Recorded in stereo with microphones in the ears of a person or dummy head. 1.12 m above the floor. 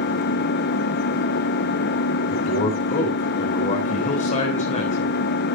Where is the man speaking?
40° left (ahead or behind), 4 m.